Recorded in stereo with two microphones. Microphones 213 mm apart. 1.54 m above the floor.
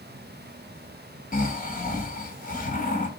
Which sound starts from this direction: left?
Snoring, at 1.3 s.